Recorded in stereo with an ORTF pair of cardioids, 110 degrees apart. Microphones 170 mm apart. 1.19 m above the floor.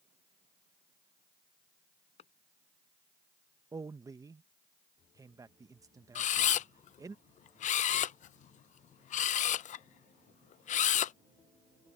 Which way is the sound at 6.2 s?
50° left.